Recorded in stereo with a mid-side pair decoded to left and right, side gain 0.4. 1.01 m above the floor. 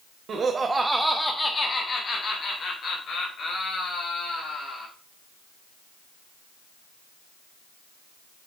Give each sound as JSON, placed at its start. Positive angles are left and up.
{"t": 0.3, "sound": "laughter", "azimuth_deg": -60, "distance_m": 1.3}